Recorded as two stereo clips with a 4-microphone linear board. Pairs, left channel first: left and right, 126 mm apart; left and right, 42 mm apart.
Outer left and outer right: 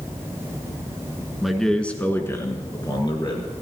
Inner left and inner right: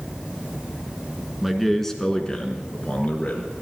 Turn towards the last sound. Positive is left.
turn(degrees=40)  # may be behind; listen again after turning